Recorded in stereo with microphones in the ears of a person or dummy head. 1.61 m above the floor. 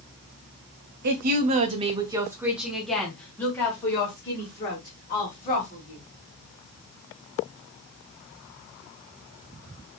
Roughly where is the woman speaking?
Right.